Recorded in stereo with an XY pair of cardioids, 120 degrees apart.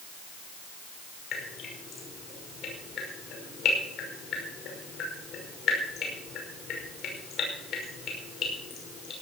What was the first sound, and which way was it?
Dripping, 60° left.